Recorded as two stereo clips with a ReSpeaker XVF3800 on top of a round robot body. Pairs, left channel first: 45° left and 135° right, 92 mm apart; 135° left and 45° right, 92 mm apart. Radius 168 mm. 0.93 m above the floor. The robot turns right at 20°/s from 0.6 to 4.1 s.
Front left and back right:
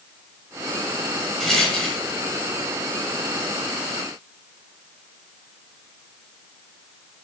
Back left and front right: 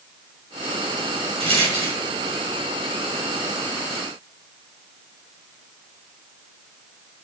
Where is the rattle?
40° right, 3.5 m; by 2.0 s 30° right, 3.5 m.